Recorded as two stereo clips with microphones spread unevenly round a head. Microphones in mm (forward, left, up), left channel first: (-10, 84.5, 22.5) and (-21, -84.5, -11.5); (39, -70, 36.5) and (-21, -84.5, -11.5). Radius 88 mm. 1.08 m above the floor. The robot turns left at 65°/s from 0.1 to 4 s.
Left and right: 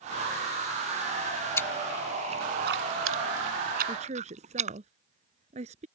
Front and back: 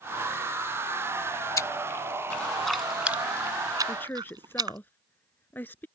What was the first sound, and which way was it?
Chewing, 15° left.